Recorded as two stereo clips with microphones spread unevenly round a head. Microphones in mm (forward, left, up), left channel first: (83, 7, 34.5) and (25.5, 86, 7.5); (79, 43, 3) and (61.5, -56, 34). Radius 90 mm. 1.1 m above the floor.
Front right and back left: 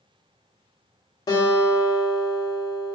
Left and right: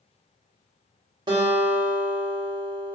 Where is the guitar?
100° right, 0.7 m.